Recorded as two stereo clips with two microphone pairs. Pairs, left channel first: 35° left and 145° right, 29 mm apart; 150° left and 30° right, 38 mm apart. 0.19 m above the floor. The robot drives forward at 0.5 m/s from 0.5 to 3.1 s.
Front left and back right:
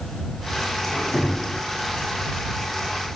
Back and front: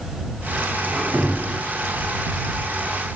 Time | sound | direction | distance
0.8 | a squeak | 15° left | 1.6 m